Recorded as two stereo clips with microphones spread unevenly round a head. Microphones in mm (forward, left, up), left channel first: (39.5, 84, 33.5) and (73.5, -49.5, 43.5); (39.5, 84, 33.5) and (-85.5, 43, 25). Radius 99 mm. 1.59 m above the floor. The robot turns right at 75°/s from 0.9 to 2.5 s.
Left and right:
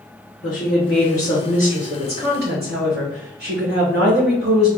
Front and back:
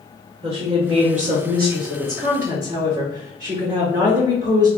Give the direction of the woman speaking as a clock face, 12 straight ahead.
7 o'clock.